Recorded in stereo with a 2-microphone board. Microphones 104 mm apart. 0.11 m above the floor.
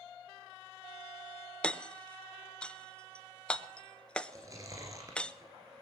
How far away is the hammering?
About 0.5 m.